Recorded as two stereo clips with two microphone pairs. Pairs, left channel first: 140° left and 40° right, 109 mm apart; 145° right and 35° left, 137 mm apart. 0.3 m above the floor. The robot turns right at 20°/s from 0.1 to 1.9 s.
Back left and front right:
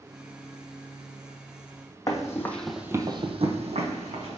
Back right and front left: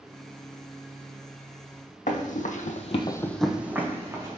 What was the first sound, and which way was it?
Running footsteps, 165° right.